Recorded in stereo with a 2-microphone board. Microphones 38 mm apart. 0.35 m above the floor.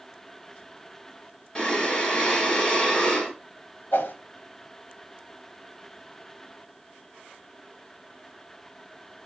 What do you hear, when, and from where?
1.6 s breathing: 10° left (ahead or behind), 1.9 m
3.9 s a whoosh: 65° left (ahead or behind), 0.7 m